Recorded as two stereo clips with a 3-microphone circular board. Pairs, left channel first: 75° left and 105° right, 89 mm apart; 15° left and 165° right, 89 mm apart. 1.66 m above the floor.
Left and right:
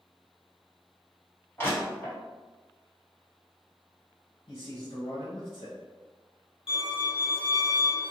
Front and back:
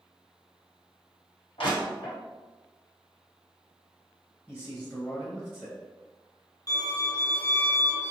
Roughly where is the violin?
Ahead left.